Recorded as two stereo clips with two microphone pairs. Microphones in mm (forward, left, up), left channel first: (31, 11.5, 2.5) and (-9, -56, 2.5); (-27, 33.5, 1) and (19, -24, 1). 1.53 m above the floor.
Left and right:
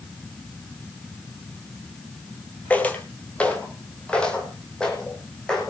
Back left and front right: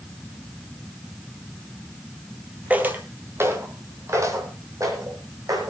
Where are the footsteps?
Straight ahead, 1.9 m; by 5.7 s 20° right, 4 m.